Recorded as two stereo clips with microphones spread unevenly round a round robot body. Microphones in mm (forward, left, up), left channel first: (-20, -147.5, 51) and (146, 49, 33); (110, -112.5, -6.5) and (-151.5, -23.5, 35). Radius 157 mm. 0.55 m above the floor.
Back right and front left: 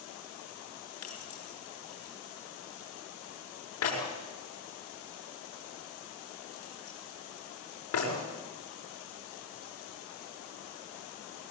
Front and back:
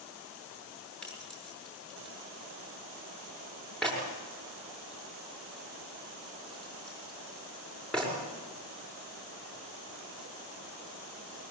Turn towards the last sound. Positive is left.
turn(degrees=-105)